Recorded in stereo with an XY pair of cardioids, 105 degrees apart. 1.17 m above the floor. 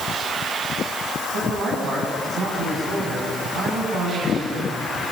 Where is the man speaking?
65° right, 8.5 m.